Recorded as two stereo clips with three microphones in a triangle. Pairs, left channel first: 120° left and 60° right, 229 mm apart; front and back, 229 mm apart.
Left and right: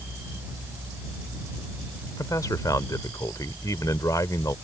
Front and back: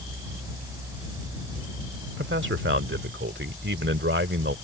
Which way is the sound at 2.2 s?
165° right.